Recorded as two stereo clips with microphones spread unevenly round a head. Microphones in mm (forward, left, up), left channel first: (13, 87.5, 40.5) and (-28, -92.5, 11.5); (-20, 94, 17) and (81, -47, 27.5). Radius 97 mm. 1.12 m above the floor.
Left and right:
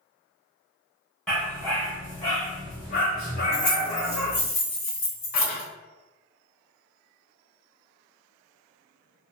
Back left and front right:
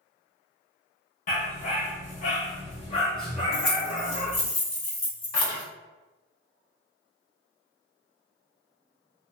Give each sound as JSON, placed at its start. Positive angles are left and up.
{"t": 1.3, "sound": "a dog barking", "azimuth_deg": 150, "distance_m": 1.0}
{"t": 3.5, "sound": "keys jangling", "azimuth_deg": 65, "distance_m": 1.7}